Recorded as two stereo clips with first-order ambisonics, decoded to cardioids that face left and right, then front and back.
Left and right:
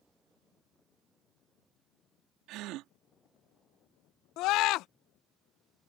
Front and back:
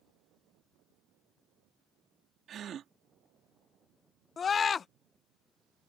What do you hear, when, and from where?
2.5 s a gasp: 125° right
4.4 s a scream: 65° left